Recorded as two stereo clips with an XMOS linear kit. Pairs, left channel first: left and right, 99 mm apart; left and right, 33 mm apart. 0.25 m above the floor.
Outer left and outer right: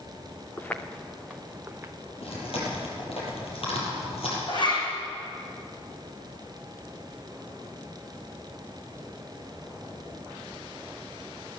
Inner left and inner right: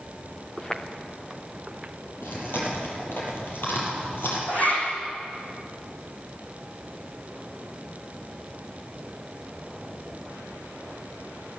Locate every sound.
0.6 s footsteps: 20° left (ahead or behind), 1.9 m; by 1.9 s 25° right (ahead or behind), 1.8 m
2.2 s chewing: 75° left (ahead or behind), 7 m
4.5 s a zipper: 50° left (ahead or behind), 6.5 m